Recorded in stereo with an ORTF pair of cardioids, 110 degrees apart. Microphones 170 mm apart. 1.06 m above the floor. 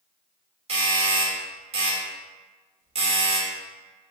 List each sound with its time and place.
0.7 s a doorbell: 40° right, 1.6 m